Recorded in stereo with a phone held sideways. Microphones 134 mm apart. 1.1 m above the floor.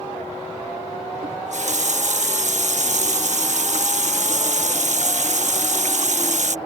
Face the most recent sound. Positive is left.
turn(degrees=-65)  # may be behind; listen again after turning